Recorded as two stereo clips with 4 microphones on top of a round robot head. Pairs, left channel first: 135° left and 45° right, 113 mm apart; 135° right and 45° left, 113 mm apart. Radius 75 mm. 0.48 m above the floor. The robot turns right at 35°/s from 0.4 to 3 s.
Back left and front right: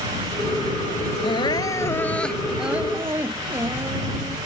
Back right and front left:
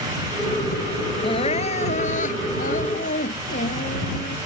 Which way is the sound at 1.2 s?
Straight behind.